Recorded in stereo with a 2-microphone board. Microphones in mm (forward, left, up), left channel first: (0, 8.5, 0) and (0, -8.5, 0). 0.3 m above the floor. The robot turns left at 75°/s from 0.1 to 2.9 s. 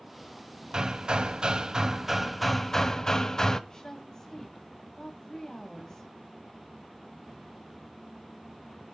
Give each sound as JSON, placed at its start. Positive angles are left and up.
{"t": 0.7, "sound": "hammering", "azimuth_deg": -55, "distance_m": 1.2}
{"t": 3.7, "sound": "a woman speaking", "side_deg": 40, "distance_m": 2.0}